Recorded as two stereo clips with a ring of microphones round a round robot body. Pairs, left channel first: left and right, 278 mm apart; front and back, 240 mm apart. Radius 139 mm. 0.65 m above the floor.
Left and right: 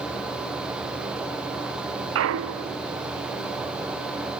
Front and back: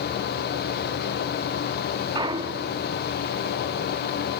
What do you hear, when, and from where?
2.1 s a clunk: 110° right, 0.7 m